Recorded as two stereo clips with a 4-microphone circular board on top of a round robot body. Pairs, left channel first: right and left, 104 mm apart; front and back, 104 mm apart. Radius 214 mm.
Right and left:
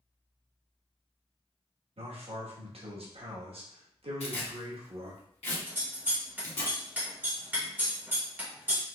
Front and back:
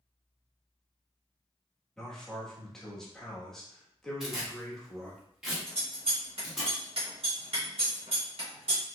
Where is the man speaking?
85° left, 1.3 m.